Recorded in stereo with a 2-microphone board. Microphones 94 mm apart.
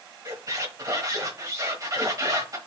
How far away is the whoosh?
I don't hear a whoosh.